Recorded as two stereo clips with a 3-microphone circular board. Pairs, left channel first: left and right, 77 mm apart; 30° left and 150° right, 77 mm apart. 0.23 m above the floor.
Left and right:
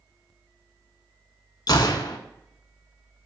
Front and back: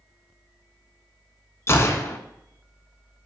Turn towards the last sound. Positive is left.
turn(degrees=80)